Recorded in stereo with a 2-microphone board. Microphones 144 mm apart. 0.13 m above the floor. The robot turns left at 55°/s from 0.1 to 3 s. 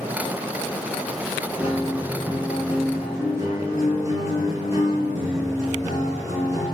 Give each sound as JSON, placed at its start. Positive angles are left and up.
{"t": 1.6, "sound": "a guitar", "azimuth_deg": 55, "distance_m": 1.5}